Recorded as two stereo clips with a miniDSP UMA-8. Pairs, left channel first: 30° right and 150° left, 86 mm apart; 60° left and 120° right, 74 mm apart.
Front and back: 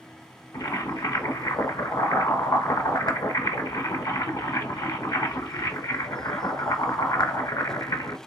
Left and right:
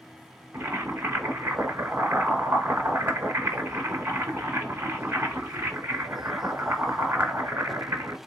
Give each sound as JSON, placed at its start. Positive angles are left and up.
{"t": 0.5, "sound": "boiling", "azimuth_deg": -60, "distance_m": 1.1}